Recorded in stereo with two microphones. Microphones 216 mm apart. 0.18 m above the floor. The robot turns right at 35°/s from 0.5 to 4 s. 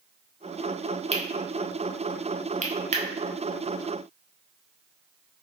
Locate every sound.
1.1 s cutlery clinking: 30° right (ahead or behind), 0.7 m